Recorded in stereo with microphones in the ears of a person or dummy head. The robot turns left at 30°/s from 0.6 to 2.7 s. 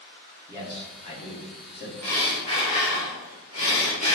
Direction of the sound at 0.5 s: 160° left.